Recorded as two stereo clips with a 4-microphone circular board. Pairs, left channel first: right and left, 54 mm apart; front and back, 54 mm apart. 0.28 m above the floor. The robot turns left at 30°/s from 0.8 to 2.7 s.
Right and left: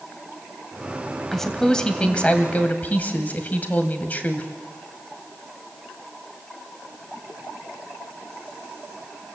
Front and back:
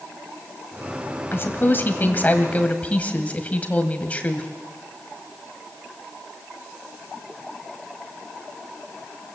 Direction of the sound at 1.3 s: 10° right.